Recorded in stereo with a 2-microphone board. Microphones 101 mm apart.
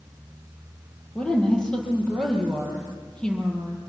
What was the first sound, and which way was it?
A woman speaking, 10° left (ahead or behind).